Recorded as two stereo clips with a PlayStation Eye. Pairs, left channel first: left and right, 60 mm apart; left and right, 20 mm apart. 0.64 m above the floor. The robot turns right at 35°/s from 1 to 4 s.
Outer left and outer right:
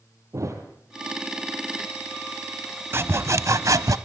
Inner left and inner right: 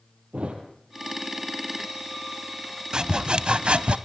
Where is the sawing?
135° right, 1.0 m; by 4.0 s 100° right, 1.0 m.